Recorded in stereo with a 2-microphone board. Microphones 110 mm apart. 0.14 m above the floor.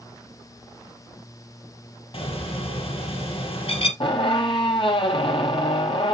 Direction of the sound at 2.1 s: 55° left (ahead or behind).